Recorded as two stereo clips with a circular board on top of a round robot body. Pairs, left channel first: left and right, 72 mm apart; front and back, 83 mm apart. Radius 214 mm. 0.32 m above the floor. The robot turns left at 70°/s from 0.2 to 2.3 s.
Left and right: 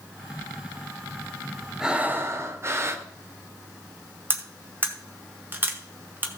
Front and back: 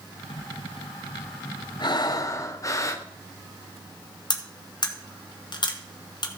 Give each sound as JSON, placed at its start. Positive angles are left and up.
{"t": 1.8, "sound": "breathing", "azimuth_deg": -10, "distance_m": 1.5}
{"t": 4.3, "sound": "cutlery clinking", "azimuth_deg": -30, "distance_m": 1.6}